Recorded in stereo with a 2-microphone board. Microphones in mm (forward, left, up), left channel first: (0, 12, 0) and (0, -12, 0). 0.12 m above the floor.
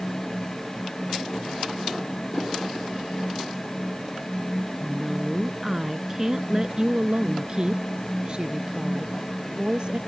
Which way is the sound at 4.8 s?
Centre (ahead or behind).